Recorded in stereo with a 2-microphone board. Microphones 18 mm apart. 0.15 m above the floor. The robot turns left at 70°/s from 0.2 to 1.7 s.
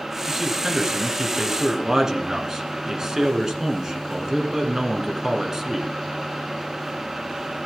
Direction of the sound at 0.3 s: 25° right.